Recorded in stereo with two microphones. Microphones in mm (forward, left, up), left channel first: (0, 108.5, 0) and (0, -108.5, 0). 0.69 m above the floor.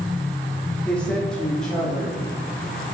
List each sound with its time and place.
0.8 s a woman speaking: 5° left (ahead or behind), 1.4 m; by 2.2 s centre (ahead or behind), 2.5 m